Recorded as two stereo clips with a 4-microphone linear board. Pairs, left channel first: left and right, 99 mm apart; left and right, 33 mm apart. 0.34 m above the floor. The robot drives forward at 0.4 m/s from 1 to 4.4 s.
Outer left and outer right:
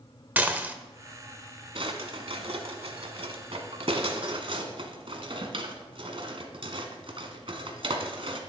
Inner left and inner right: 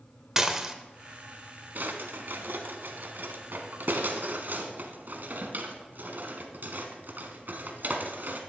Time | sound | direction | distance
0.4 | dishes clattering | 15° right (ahead or behind) | 0.8 m
1.8 | a drawer | 65° right (ahead or behind) | 1.3 m